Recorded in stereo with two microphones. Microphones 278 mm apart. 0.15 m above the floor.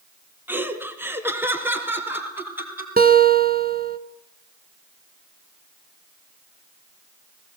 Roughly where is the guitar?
Right.